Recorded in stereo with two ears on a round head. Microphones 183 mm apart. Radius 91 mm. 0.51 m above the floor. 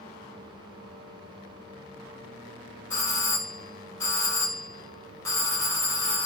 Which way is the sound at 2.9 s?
15° left (ahead or behind).